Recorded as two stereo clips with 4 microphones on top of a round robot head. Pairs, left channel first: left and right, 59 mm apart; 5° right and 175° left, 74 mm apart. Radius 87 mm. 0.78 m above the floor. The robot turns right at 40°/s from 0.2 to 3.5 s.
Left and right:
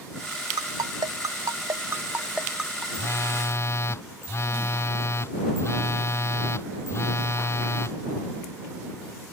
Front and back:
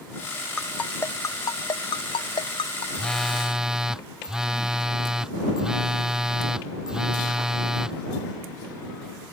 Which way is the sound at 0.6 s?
85° right.